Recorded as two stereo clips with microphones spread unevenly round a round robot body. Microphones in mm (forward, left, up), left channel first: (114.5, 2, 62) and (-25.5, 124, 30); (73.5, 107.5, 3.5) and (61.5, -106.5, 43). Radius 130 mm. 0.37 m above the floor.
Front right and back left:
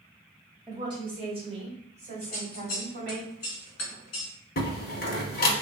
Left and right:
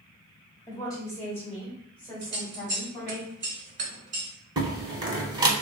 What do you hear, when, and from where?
0.7 s a woman speaking: 115° left, 1.2 m; by 3.2 s 175° left, 2 m
2.2 s scissors: 60° right, 1.0 m
4.6 s a door slam: 20° right, 1.0 m